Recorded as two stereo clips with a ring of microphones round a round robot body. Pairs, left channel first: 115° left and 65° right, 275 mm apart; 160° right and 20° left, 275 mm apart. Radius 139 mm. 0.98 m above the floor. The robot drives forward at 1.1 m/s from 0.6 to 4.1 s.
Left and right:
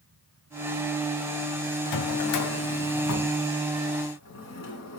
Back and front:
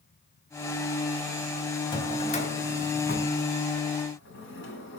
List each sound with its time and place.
1.9 s a drawer: 130° left, 2 m; by 5.0 s 155° left, 4 m